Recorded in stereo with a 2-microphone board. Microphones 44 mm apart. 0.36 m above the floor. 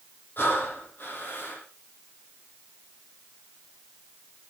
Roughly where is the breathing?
Left.